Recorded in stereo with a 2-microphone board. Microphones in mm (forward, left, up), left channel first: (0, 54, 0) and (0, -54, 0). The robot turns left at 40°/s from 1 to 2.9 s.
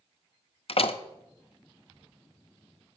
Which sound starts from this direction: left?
A door slam, at 0.7 s.